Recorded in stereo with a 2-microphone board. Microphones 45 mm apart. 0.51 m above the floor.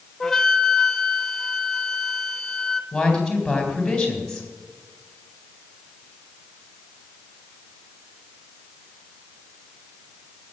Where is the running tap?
No running tap in this recording.